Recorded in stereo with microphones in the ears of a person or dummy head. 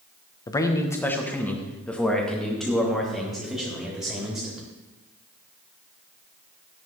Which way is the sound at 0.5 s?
20° left (ahead or behind).